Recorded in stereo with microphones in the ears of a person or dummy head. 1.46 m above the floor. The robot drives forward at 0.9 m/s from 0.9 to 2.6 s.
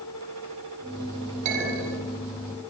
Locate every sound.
1.4 s a clink: 45° right (ahead or behind), 8.5 m